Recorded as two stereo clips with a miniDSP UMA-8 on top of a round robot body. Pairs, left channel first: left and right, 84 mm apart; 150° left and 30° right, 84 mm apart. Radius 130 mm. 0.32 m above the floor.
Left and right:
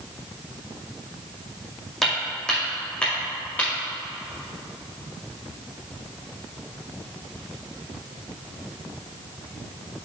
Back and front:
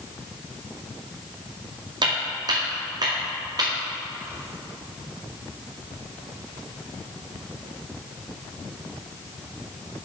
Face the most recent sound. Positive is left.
turn(degrees=20)